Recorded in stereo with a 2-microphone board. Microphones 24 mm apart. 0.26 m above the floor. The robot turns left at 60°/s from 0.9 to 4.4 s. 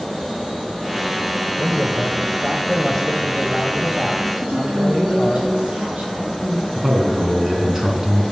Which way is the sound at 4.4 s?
55° right (ahead or behind).